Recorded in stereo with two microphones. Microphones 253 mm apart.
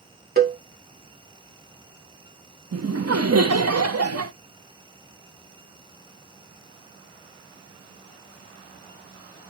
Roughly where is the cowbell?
Right.